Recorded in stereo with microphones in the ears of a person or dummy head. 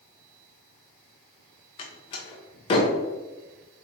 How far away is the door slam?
About 0.8 m.